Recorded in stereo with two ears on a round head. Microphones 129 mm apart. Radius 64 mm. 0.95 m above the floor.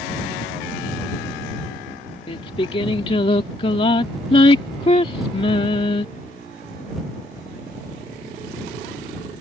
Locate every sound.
2.3 s singing: 40° left (ahead or behind)